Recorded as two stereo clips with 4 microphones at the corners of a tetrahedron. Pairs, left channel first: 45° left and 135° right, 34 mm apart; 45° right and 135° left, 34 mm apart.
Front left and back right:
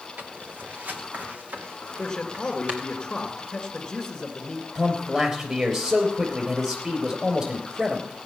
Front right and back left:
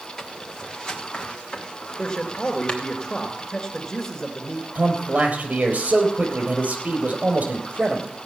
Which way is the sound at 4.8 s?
170° left.